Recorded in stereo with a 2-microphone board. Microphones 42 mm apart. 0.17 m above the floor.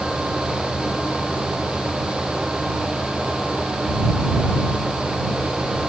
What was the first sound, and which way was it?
Only background noise.